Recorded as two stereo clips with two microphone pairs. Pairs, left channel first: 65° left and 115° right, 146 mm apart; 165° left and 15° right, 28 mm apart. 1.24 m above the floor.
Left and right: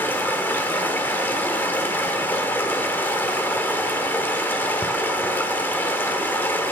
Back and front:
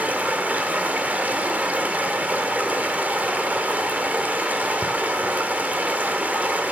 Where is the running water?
15° right, 1.6 m.